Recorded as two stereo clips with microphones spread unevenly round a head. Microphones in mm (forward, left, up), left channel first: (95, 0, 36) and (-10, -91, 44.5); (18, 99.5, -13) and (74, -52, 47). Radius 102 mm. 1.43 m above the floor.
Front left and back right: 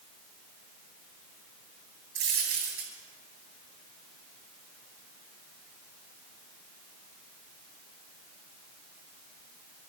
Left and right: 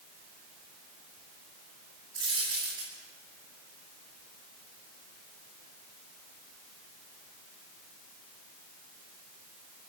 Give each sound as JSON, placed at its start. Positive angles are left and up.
{"t": 2.1, "sound": "a dropped coin", "azimuth_deg": -135, "distance_m": 9.5}